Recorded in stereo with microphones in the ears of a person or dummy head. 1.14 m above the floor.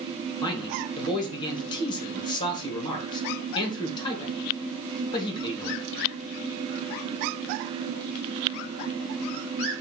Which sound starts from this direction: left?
A man speaking, at 0.4 s.